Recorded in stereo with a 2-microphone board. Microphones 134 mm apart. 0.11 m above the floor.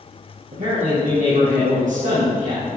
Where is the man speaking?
70° right (ahead or behind), 4 m.